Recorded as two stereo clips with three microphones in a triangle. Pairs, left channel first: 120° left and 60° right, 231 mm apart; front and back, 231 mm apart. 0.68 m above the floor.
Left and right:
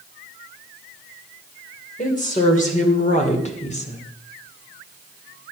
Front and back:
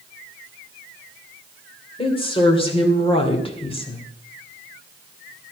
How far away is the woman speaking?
About 3 m.